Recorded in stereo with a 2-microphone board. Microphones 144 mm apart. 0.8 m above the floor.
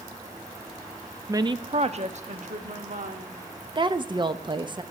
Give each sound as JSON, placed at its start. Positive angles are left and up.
{"t": 1.3, "sound": "a woman speaking", "side_deg": -20, "distance_m": 0.5}
{"t": 3.8, "sound": "a woman speaking", "side_deg": -30, "distance_m": 0.7}